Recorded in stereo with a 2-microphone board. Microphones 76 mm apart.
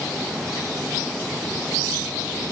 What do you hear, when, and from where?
Only background noise.